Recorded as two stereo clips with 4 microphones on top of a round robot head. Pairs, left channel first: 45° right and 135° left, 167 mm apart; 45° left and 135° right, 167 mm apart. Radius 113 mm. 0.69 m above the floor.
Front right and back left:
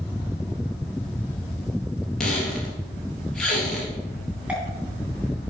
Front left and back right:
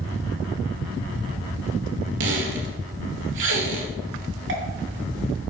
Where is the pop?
140° right, 3 m.